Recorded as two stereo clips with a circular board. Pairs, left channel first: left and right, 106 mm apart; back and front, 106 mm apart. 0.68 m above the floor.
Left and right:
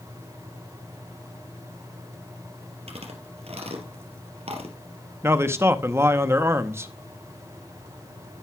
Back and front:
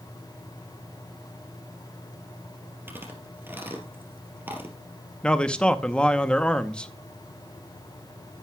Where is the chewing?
70° right, 3 m.